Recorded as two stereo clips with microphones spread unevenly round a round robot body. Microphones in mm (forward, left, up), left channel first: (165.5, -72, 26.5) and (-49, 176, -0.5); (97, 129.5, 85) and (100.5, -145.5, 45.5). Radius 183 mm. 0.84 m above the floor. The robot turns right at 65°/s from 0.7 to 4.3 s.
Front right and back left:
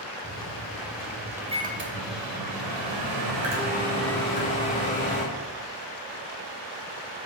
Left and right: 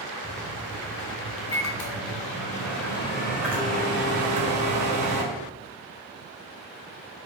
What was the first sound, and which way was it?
A microwave, 5° left.